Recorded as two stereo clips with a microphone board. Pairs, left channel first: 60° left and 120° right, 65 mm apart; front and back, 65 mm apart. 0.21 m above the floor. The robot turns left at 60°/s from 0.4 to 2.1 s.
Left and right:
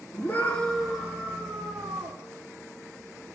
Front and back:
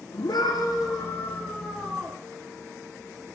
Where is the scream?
5° right, 9.5 m; by 2.2 s 110° right, 9.5 m.